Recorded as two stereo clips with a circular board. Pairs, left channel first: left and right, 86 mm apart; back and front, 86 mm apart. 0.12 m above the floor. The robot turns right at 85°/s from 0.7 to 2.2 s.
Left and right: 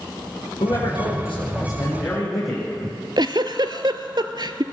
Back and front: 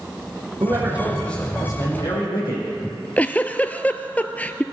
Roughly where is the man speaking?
Ahead left.